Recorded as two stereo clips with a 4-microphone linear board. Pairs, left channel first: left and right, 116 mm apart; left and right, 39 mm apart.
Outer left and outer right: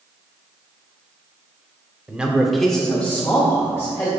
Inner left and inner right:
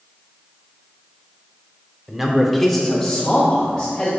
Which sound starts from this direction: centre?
A man speaking, at 2.1 s.